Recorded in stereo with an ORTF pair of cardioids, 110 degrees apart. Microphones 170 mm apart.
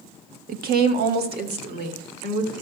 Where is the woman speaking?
60° right, 1.1 m; by 2.5 s 75° right, 3 m.